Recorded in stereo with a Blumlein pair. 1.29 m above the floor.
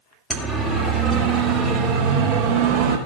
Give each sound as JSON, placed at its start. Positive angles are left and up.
{"t": 0.3, "sound": "a siren", "azimuth_deg": -5, "distance_m": 3.0}